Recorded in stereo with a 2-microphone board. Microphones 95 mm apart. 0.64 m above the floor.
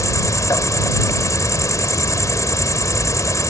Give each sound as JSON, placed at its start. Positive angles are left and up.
{"t": 0.0, "sound": "an insect", "side_deg": 35}